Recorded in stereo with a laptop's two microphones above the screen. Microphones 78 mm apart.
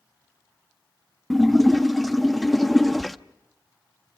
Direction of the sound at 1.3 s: Centre (ahead or behind).